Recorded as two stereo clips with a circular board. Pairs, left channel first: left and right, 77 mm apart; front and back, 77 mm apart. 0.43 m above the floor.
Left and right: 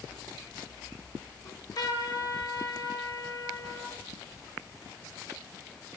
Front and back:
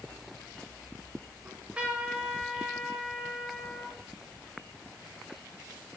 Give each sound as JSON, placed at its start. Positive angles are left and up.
{"t": 1.4, "sound": "a trumpet", "azimuth_deg": 105, "distance_m": 1.5}